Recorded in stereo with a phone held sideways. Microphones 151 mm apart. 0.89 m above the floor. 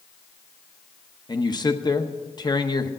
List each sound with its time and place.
1.3 s a man speaking: 25° left (ahead or behind), 0.8 m